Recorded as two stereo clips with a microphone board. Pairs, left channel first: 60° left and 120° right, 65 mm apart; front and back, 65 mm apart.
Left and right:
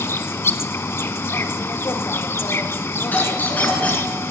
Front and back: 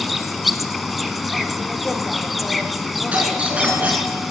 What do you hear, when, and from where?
0.0 s an insect: 90° left, 0.8 m
3.1 s a doorbell: 115° left, 3.5 m